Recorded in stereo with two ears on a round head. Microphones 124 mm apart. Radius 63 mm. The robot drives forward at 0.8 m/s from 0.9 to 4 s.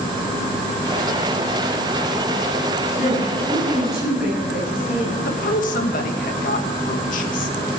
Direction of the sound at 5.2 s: 65° left (ahead or behind).